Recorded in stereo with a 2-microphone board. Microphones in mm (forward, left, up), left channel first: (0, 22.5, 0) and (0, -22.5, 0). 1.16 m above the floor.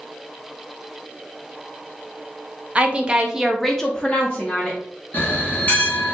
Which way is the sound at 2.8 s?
25° right (ahead or behind).